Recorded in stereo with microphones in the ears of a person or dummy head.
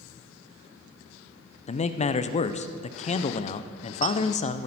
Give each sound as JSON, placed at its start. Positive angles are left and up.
{"t": 1.7, "sound": "a man speaking", "side_deg": 35, "distance_m": 0.6}